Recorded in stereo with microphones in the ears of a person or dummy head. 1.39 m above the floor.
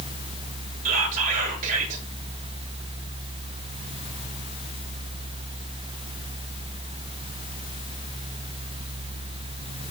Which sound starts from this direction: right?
Whispering, at 0.8 s.